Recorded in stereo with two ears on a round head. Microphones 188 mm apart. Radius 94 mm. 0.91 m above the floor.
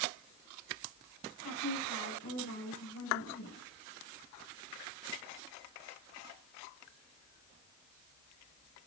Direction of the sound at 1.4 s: 65° left (ahead or behind).